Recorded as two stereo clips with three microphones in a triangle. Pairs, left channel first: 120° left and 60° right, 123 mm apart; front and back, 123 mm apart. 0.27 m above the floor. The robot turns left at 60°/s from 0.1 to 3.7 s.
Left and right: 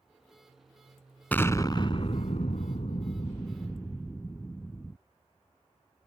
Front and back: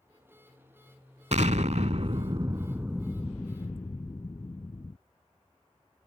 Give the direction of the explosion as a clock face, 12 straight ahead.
5 o'clock.